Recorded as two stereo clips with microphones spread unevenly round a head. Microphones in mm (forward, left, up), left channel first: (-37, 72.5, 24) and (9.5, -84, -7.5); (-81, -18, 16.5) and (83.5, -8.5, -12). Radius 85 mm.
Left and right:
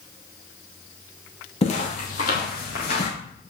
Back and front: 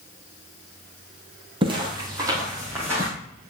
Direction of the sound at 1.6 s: 65° left.